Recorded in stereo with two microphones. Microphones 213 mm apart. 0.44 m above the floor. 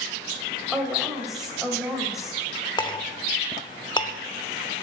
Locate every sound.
0.7 s a woman speaking: centre (ahead or behind), 2 m
2.8 s a clink: 20° left (ahead or behind), 0.7 m